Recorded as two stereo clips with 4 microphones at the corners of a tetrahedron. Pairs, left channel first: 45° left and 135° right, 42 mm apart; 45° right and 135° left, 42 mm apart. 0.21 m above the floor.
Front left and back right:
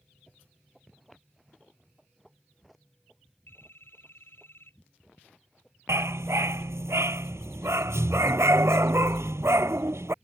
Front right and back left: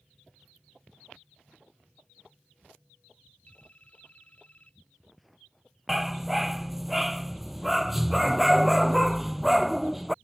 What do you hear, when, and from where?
3.5 s a phone ringing: 10° left
5.9 s a dog barking: 140° right